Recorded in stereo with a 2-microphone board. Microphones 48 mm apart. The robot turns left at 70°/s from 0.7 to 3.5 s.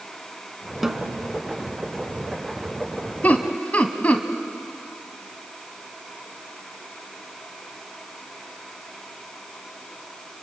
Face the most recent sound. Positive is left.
turn(degrees=30)  # may be behind; listen again after turning